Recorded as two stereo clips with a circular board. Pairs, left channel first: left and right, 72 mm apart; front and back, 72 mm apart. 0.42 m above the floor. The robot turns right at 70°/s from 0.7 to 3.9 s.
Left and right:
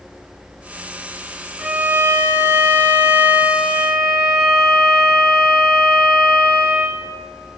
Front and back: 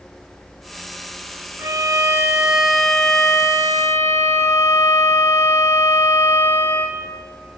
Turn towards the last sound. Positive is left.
turn(degrees=-5)